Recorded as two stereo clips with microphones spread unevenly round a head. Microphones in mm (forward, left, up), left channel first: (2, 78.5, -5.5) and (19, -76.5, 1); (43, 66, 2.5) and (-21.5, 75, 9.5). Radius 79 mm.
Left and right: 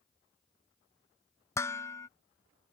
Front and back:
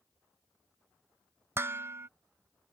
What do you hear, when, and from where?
1.6 s dishes clattering: 165° left